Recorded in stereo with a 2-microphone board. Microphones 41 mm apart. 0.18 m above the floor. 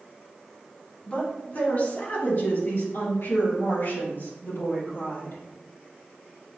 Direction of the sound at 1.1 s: 30° left (ahead or behind).